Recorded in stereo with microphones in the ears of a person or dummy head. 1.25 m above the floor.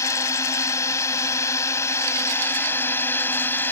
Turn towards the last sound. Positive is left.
turn(degrees=10)  # may be behind; listen again after turning